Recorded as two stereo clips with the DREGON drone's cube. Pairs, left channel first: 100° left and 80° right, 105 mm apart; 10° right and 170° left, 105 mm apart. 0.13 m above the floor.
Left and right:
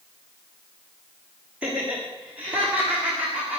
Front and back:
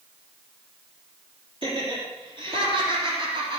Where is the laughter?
155° right, 7 m.